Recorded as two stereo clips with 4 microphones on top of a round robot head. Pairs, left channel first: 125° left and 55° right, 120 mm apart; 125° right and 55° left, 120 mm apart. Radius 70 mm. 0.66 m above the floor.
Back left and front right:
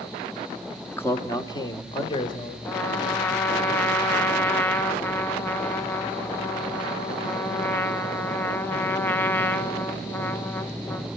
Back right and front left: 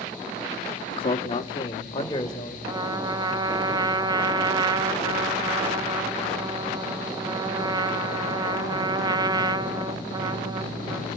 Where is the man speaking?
160° right, 1.1 m; by 2.5 s 175° left, 3 m.